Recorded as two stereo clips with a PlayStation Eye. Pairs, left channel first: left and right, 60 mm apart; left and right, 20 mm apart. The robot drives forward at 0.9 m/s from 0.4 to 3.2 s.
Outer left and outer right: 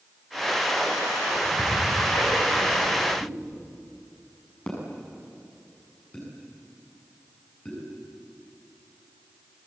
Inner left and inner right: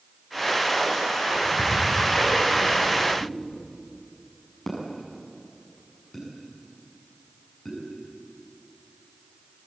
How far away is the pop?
About 7 m.